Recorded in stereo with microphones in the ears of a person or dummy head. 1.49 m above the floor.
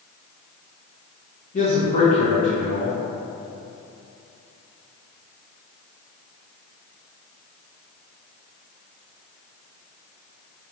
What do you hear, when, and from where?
1.5 s a man speaking: 40° left (ahead or behind), 1.3 m